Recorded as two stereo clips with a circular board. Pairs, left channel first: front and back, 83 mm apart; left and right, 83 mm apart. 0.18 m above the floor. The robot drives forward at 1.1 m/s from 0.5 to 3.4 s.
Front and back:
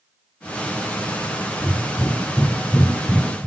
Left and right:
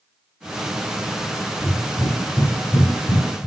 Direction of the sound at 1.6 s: 70° left.